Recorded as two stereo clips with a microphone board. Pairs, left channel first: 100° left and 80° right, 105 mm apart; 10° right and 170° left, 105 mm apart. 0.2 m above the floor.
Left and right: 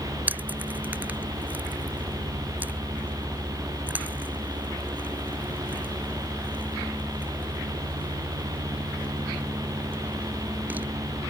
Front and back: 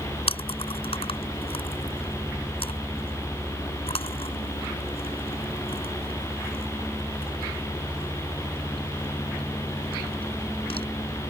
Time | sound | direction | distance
0.3 | chewing | 10° right | ?